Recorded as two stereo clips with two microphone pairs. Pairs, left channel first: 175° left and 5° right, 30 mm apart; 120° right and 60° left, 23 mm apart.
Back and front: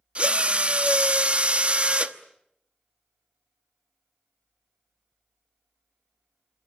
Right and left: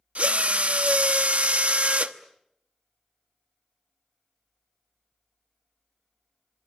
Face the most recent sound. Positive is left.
turn(degrees=50)